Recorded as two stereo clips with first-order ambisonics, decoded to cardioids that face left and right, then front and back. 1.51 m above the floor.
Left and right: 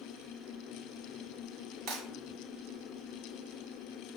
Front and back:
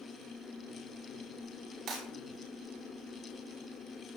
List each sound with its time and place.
1.9 s breaking glass: 130° right, 4 m